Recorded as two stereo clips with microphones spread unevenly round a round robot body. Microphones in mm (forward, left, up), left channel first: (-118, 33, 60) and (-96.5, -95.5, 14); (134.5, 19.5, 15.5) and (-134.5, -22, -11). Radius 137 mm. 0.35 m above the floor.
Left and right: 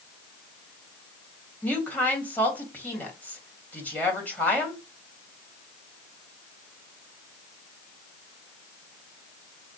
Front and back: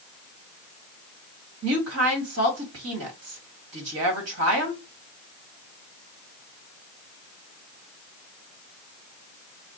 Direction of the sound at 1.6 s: 170° right.